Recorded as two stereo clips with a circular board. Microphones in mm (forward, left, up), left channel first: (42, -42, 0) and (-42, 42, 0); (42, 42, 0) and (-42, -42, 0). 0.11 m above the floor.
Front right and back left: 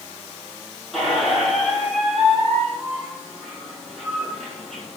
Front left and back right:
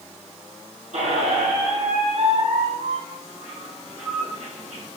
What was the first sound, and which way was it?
A squeak, 135° right.